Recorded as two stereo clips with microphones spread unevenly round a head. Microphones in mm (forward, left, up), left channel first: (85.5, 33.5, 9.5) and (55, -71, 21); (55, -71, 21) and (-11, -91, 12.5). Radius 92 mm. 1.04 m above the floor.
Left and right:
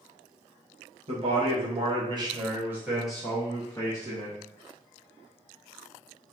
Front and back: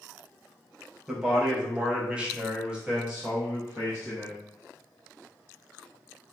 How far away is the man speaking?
About 1.1 m.